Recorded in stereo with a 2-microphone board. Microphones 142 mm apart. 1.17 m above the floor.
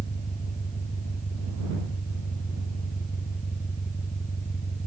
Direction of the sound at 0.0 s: 65° left (ahead or behind).